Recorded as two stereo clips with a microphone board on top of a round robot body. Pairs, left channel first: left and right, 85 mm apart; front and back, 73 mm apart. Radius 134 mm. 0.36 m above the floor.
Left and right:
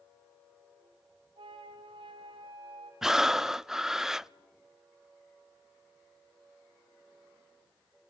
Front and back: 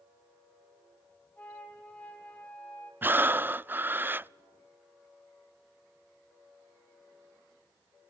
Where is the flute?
70° right, 4 m.